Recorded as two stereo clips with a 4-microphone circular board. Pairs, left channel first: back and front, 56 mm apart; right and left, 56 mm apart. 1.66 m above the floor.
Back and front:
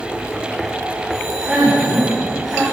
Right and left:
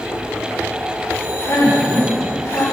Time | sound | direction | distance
1.1 | a man speaking | 80° right | 5.5 m